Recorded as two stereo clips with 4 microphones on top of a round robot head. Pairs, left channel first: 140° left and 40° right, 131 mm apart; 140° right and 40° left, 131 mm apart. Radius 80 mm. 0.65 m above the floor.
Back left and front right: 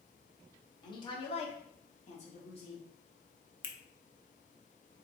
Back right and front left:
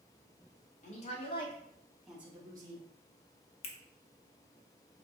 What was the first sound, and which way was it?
A woman speaking, 165° right.